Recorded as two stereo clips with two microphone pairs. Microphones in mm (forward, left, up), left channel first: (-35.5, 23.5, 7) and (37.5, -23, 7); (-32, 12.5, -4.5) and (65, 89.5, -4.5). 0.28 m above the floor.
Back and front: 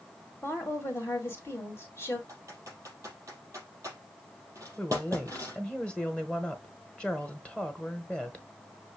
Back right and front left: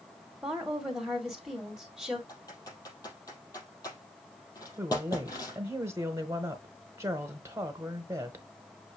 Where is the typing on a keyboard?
85° right, 4.5 m.